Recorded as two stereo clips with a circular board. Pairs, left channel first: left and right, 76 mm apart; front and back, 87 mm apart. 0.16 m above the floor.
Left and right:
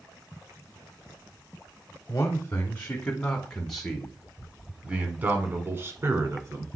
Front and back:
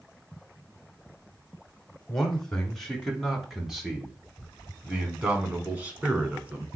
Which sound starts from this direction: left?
A man speaking, at 2.1 s.